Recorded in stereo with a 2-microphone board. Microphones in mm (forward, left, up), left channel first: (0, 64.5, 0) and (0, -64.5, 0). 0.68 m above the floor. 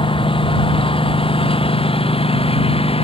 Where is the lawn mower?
45° left (ahead or behind); by 3.0 s 50° left (ahead or behind).